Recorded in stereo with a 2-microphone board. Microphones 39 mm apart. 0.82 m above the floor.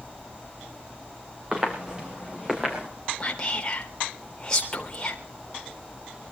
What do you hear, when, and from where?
1.5 s footsteps: 25° right (ahead or behind), 5 m; by 2.9 s 20° right (ahead or behind), 6 m
3.2 s whispering: 20° left (ahead or behind), 3.5 m